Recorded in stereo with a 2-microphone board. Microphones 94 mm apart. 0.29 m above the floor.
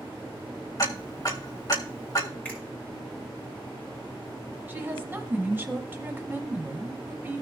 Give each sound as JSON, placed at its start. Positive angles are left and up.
{"t": 0.8, "sound": "ticking", "side_deg": 40, "distance_m": 1.7}
{"t": 2.5, "sound": "a finger snap", "side_deg": 15, "distance_m": 4.0}
{"t": 4.7, "sound": "a woman speaking", "side_deg": -25, "distance_m": 1.5}